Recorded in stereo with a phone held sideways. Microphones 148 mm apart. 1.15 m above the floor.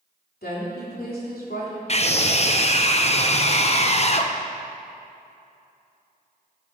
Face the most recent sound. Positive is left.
turn(degrees=45)  # may be behind; listen again after turning